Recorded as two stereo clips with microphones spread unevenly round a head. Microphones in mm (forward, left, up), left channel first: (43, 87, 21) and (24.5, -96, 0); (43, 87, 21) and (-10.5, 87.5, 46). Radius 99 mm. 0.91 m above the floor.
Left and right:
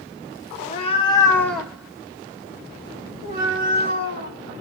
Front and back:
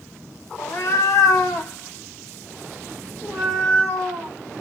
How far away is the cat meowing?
About 0.8 m.